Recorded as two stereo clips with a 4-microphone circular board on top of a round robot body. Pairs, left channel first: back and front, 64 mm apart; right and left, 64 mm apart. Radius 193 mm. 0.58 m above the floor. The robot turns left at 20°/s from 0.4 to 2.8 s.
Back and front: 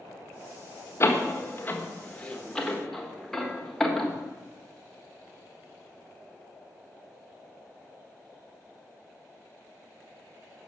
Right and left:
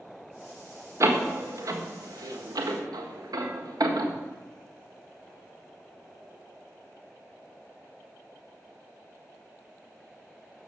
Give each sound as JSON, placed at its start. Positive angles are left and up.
{"t": 1.0, "sound": "a door slam", "azimuth_deg": 130, "distance_m": 1.5}